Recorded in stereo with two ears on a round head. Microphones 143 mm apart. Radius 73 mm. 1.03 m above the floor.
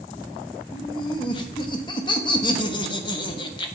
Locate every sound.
0.7 s laughter: 30° left (ahead or behind), 1.1 m